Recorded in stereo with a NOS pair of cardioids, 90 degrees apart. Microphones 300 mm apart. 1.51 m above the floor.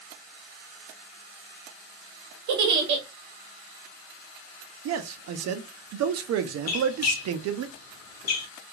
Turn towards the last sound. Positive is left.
turn(degrees=60)